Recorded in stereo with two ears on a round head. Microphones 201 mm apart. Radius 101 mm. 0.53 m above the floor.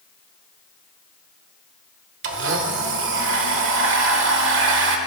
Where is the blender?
60° right (ahead or behind), 1.4 m.